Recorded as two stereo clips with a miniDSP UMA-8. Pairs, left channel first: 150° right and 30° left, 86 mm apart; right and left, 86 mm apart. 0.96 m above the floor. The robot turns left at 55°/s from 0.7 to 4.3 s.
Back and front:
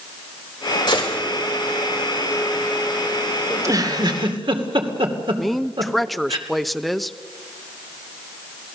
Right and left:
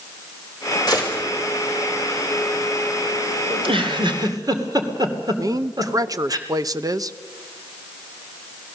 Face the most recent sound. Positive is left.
turn(degrees=120)